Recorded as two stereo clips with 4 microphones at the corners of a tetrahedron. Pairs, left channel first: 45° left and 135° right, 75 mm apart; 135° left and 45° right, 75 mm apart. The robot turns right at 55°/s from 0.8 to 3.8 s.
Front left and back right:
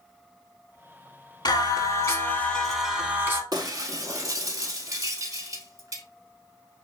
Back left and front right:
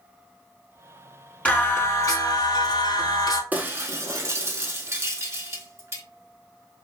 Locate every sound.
1.4 s singing: 60° left, 0.6 m; by 3.4 s 170° left, 0.6 m
3.5 s breaking glass: 110° right, 0.5 m; by 6.0 s 95° right, 0.5 m